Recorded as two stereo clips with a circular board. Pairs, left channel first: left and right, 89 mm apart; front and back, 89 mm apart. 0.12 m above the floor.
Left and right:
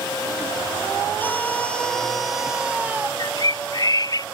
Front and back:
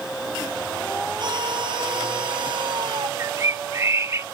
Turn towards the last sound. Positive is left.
turn(degrees=125)